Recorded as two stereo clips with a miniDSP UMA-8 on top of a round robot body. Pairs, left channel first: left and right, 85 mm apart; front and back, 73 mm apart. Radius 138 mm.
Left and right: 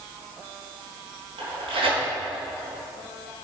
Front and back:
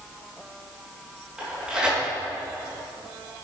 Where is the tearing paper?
100° right, 4.5 m.